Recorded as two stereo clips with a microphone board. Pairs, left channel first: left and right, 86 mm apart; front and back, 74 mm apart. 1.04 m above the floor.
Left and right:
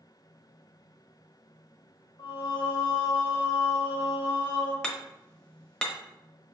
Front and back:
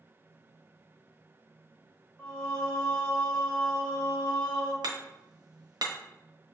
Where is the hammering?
170° left, 0.6 m.